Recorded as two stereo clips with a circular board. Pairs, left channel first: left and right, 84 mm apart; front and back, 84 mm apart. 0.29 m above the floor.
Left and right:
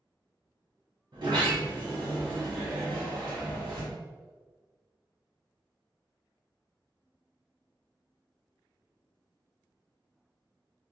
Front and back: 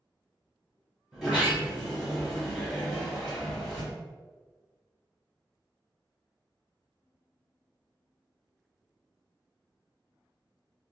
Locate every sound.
1.1 s a sliding door: 90° right, 1.2 m